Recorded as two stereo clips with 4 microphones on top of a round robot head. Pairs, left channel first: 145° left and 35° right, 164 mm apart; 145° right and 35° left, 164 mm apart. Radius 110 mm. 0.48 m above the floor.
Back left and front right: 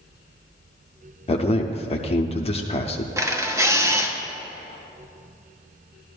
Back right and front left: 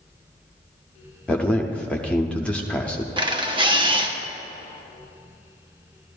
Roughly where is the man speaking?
Behind left.